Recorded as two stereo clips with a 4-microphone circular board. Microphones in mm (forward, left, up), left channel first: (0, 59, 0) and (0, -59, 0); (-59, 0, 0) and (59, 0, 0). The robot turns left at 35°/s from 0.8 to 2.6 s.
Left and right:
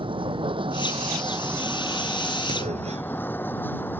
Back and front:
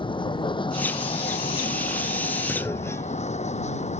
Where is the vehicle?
135° right; by 4.0 s 165° left.